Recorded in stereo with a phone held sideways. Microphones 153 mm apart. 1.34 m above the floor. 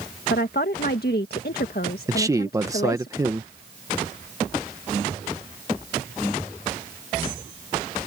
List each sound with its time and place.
0.3 s a woman speaking: 80° left
2.1 s a man speaking: 20° right (ahead or behind)